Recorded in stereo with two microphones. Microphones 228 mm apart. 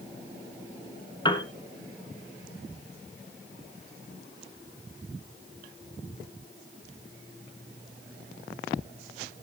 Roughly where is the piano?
Left.